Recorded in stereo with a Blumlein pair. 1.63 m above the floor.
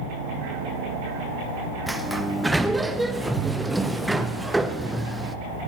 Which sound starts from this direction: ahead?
A sliding door, at 1.9 s.